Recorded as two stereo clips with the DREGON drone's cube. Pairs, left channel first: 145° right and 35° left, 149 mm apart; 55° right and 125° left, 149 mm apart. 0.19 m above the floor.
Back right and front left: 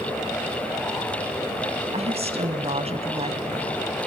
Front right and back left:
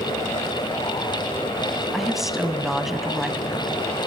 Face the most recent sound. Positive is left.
turn(degrees=35)